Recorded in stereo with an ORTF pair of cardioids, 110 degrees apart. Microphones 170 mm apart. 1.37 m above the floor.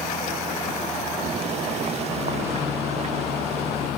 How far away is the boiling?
About 1.1 m.